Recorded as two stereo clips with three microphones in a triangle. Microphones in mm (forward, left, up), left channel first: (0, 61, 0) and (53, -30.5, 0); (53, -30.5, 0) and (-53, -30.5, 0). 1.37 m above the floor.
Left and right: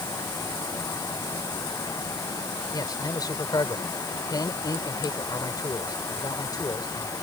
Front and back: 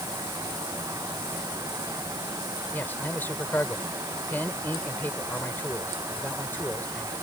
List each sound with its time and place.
2.7 s a man speaking: 70° left